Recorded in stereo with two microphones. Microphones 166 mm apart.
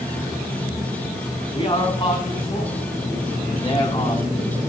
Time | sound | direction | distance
1.5 | a man speaking | 30° left (ahead or behind) | 1.7 m